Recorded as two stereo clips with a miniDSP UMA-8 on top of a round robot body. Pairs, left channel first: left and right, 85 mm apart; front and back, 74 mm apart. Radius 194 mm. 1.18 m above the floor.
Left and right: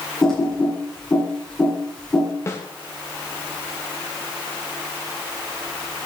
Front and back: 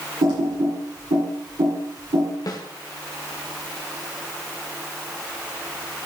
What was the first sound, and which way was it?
Typing on a keyboard, 175° left.